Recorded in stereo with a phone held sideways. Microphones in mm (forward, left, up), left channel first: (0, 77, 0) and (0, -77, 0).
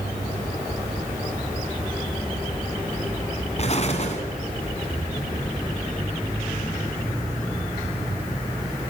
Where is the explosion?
45° left (ahead or behind), 2 m.